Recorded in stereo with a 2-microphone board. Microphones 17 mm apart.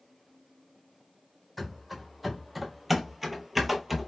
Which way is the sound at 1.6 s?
Centre (ahead or behind).